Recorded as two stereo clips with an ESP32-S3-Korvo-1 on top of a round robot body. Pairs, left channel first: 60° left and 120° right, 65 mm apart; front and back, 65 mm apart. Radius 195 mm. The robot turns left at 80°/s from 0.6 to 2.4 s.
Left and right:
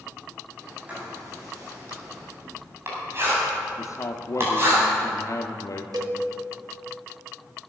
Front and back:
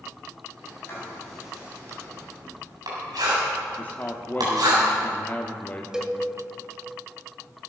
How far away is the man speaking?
About 1.1 m.